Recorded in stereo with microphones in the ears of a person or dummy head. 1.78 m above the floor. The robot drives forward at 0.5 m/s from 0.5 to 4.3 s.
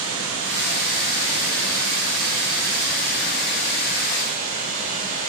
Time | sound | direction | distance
0.0 | running water | 70° right (ahead or behind) | 2 m